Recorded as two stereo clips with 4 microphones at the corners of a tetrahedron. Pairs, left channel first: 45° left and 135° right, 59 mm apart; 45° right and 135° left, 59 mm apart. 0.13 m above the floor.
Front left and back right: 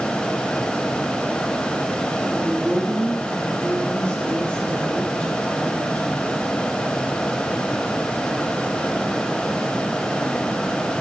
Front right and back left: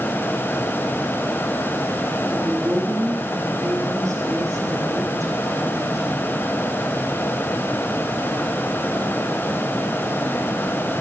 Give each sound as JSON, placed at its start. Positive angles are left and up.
{"t": 2.3, "sound": "a woman speaking", "azimuth_deg": 115, "distance_m": 4.5}